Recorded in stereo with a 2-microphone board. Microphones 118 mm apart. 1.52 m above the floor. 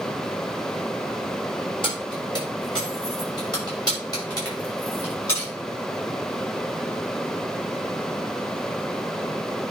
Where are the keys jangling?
45° left (ahead or behind), 5.5 m; by 5.5 s 30° left (ahead or behind), 6.5 m.